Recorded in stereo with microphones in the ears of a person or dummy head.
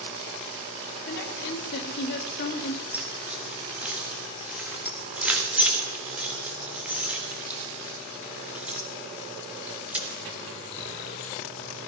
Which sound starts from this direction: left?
A woman speaking, at 1.1 s.